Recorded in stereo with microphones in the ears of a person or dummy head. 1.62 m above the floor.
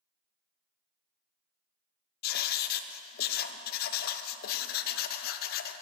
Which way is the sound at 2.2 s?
50° left (ahead or behind).